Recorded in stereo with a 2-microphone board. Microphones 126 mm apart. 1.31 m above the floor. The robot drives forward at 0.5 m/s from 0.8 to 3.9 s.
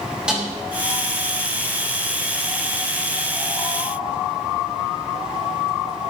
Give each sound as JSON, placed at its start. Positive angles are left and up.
{"t": 0.3, "sound": "a snare drum", "side_deg": -10, "distance_m": 5.5}